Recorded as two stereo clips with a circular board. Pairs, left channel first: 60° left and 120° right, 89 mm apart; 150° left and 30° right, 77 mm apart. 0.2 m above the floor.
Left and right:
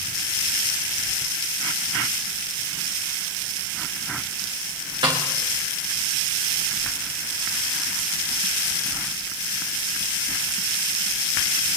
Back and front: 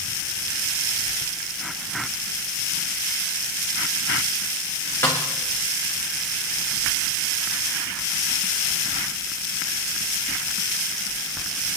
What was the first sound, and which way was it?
A snare drum, 155° right.